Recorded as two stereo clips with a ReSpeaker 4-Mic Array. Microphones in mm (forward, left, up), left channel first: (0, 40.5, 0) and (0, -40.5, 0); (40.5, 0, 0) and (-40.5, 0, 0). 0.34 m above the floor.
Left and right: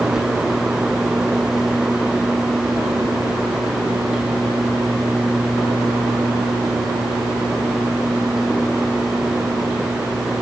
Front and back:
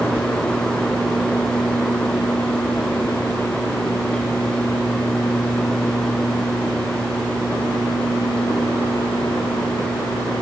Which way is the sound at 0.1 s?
165° right.